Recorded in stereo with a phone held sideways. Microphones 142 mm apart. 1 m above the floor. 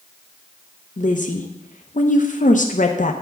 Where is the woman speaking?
60° left (ahead or behind), 0.7 m.